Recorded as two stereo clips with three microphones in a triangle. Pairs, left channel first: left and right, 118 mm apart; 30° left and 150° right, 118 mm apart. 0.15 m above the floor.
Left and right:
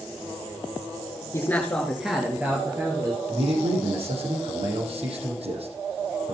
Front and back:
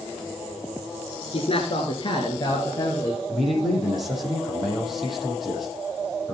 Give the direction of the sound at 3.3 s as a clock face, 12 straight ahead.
2 o'clock.